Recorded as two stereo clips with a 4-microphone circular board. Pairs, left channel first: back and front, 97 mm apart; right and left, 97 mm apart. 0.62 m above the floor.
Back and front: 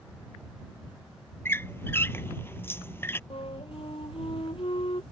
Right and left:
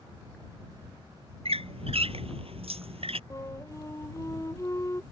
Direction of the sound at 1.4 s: 110° left.